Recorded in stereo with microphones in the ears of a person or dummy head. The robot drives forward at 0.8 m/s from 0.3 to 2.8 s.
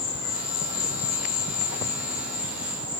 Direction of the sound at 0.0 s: 55° left (ahead or behind).